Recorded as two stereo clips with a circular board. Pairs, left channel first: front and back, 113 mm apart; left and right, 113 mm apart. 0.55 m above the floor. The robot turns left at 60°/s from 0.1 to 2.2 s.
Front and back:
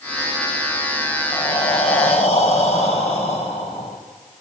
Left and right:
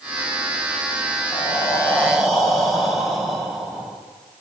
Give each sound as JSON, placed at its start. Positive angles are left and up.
{"t": 1.3, "sound": "breathing", "azimuth_deg": 50, "distance_m": 3.5}